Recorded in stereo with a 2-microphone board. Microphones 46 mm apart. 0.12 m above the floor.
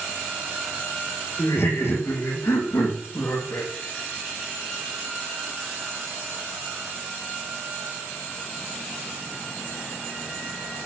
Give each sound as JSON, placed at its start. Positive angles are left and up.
{"t": 1.4, "sound": "laughter", "side_deg": 70, "distance_m": 5.5}